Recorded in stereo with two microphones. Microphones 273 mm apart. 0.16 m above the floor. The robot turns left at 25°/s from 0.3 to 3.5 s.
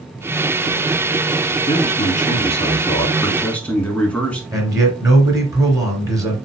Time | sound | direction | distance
1.7 | a man speaking | 55° left | 1.7 m
4.5 | a man speaking | 10° right (ahead or behind) | 2.5 m